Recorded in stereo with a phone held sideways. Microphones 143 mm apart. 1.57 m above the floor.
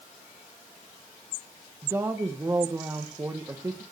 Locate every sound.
1.8 s a woman speaking: 15° right (ahead or behind), 1.6 m